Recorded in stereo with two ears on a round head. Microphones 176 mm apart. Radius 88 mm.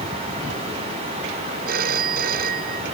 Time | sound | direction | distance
1.7 | a phone ringing | 50° right (ahead or behind) | ?